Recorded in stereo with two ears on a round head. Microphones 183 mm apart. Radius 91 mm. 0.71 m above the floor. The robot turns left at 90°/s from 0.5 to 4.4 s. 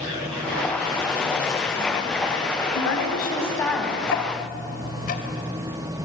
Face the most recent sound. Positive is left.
turn(degrees=40)  # may be behind; listen again after turning